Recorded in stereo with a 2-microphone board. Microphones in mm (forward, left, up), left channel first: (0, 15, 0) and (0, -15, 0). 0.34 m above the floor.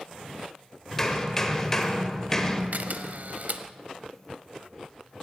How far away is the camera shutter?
About 0.8 m.